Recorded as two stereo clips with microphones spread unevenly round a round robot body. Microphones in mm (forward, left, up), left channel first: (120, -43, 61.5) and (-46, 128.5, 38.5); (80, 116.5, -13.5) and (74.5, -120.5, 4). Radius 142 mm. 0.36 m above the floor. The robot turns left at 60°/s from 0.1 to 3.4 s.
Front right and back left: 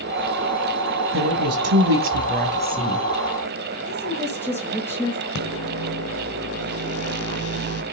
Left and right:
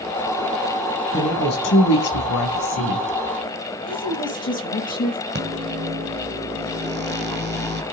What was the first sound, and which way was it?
A woman speaking, 165° left.